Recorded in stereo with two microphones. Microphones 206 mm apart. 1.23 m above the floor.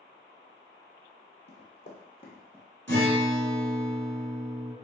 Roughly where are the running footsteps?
Left.